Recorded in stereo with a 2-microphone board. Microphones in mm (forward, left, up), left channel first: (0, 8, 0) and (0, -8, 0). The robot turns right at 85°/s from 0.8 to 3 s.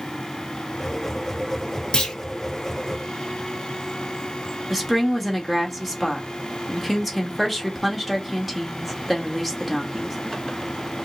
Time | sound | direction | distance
1.9 | a clunk | 75° left (ahead or behind) | 1.4 m
4.7 | a woman speaking | centre (ahead or behind) | 1.4 m